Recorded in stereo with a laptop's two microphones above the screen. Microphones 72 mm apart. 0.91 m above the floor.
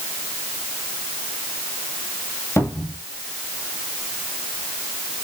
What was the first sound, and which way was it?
A cupboard door, 40° left (ahead or behind).